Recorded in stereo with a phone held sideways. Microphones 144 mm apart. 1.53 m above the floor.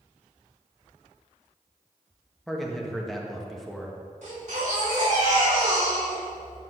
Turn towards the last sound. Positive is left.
turn(degrees=-55)  # may be behind; listen again after turning